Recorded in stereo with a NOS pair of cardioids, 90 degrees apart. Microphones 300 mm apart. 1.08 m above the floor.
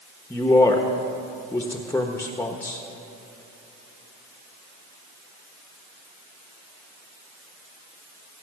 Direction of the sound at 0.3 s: 10° left.